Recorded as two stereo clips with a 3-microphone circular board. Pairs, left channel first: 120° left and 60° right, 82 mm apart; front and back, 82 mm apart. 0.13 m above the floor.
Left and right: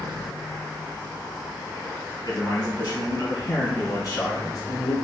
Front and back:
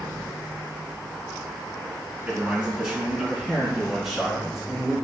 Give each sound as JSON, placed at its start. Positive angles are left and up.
{"t": 2.2, "sound": "a man speaking", "azimuth_deg": 100, "distance_m": 1.9}